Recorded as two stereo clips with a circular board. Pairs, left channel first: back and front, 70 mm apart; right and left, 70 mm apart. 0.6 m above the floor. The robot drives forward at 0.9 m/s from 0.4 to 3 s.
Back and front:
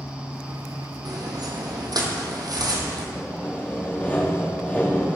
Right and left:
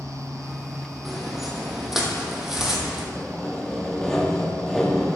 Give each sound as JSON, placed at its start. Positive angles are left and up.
{"t": 1.1, "sound": "footsteps", "azimuth_deg": 5, "distance_m": 1.4}
{"t": 3.1, "sound": "sawing", "azimuth_deg": -160, "distance_m": 1.0}